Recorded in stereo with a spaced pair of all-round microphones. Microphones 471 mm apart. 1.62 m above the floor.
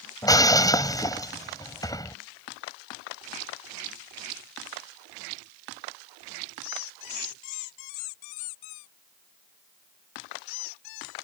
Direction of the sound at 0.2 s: 10° left (ahead or behind).